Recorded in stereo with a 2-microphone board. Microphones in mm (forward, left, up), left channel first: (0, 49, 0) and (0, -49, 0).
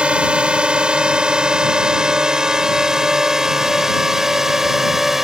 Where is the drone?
10° right (ahead or behind); by 5.2 s 5° right (ahead or behind).